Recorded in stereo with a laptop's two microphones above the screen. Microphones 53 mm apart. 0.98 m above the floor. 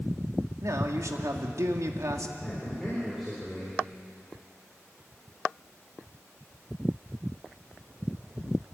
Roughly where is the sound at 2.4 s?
Centre.